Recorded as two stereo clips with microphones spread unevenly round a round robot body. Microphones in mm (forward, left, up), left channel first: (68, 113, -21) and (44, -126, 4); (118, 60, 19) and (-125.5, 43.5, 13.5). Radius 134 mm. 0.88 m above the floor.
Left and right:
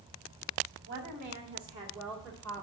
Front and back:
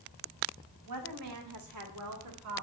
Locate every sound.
0.9 s a woman speaking: 150° right, 1.5 m; by 2.6 s 165° left, 1.8 m